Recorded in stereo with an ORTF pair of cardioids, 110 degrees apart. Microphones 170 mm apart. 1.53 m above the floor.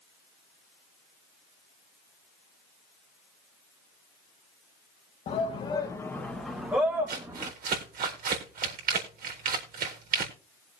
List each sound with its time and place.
5.3 s a shout: 45° left, 1.6 m; by 7.5 s 20° right, 2.5 m
7.1 s crumpling: 60° right, 4 m